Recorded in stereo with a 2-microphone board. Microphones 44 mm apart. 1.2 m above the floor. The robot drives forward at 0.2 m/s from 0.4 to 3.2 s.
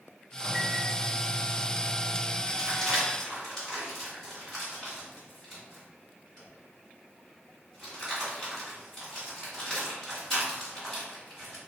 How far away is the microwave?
About 0.6 m.